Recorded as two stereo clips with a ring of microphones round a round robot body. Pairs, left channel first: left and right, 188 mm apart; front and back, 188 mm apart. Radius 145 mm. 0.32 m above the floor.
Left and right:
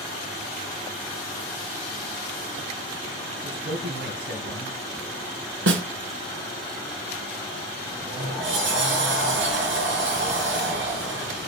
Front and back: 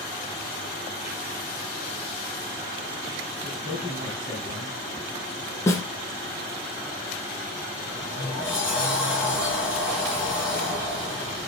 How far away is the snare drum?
About 1.4 m.